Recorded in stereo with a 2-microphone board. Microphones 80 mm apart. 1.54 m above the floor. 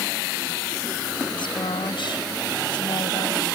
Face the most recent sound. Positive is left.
turn(degrees=75)  # may be behind; listen again after turning